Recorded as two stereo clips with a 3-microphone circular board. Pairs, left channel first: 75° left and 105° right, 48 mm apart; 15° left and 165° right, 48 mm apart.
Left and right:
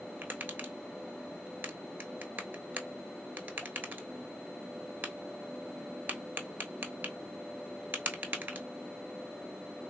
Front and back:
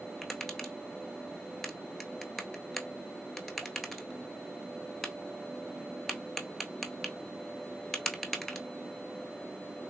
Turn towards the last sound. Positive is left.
turn(degrees=-70)